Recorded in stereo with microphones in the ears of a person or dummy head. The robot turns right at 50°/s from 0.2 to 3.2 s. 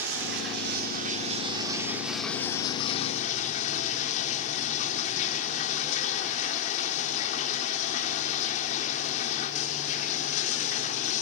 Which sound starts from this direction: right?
Running water, at 0.0 s.